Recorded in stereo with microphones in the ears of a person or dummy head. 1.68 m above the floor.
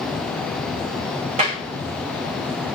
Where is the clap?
35° right (ahead or behind), 3 m.